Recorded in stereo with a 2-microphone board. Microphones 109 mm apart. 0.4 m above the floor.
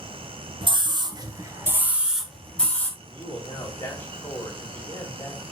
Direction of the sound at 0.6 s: 50° right (ahead or behind).